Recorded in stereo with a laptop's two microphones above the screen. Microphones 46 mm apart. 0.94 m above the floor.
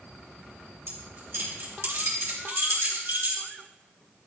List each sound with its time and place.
0.9 s keys jangling: 60° right (ahead or behind), 3 m